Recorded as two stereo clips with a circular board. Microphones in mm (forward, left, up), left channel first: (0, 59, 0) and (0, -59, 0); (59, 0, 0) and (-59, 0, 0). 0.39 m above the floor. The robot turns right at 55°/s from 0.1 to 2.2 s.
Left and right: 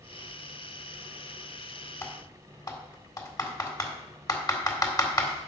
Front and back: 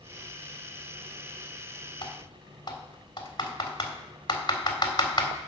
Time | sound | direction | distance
2.0 | typing on a keyboard | 30° left | 1.8 m